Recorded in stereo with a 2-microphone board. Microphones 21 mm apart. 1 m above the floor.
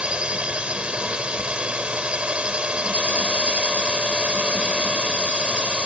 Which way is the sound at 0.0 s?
70° right (ahead or behind).